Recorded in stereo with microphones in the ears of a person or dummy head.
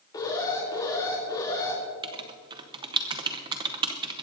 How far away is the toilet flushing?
I don't hear a toilet flushing.